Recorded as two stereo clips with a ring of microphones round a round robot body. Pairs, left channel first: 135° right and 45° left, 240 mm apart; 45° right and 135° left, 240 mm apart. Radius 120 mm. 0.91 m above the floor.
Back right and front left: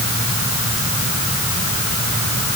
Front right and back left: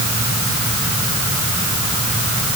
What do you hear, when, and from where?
Only background noise.